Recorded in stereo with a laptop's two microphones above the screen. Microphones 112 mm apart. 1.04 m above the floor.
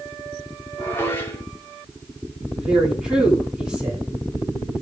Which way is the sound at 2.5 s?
5° right (ahead or behind).